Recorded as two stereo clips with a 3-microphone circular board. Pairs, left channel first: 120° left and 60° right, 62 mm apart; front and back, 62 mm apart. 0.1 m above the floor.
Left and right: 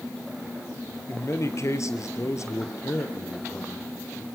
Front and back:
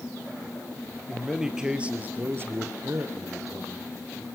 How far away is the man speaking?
About 2.5 m.